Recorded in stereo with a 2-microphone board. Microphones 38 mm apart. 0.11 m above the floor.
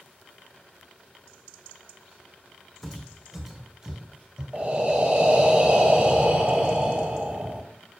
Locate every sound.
2.8 s footsteps: centre (ahead or behind), 1.0 m; by 4.4 s 20° right (ahead or behind), 2.0 m
4.5 s breathing: 30° right (ahead or behind), 0.9 m